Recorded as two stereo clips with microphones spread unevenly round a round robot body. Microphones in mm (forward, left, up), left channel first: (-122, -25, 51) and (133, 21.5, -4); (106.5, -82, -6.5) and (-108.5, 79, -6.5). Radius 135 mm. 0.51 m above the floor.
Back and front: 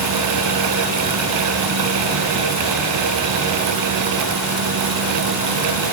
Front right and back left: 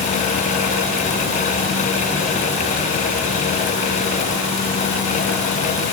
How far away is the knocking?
No knocking in this recording.